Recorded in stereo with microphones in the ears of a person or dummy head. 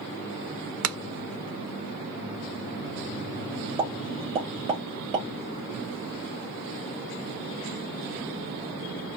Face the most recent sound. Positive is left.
turn(degrees=-25)  # may be behind; listen again after turning